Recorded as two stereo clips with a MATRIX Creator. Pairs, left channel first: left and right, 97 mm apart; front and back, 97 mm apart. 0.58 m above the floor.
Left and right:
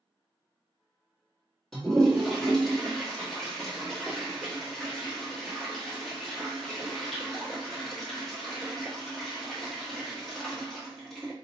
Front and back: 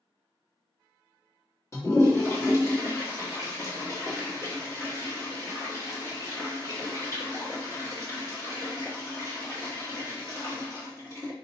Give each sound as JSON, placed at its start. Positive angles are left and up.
{"t": 1.7, "sound": "a toilet flushing", "azimuth_deg": 10, "distance_m": 1.1}